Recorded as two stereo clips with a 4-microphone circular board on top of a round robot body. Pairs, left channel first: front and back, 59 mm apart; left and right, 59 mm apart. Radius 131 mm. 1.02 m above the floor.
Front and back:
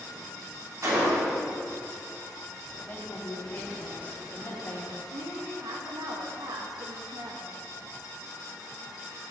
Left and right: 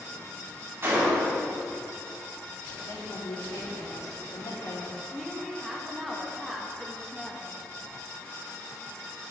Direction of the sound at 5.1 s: Straight behind.